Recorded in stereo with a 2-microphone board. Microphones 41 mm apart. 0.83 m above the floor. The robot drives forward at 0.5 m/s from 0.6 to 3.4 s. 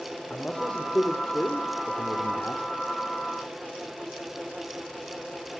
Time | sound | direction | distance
0.3 | a man speaking | 30° left (ahead or behind) | 2 m